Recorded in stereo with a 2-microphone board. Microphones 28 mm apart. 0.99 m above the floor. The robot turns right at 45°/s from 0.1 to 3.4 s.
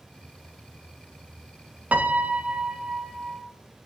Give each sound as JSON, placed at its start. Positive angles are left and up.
{"t": 1.9, "sound": "a piano", "azimuth_deg": -70, "distance_m": 0.6}